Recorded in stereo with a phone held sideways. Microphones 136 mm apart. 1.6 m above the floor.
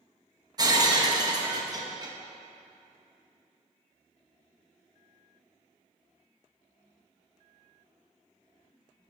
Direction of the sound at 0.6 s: 30° right (ahead or behind).